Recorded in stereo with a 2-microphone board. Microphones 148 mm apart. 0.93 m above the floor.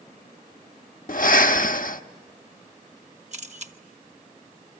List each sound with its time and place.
1.1 s breathing: 70° left (ahead or behind), 0.7 m
3.3 s a camera shutter: 50° right (ahead or behind), 1.2 m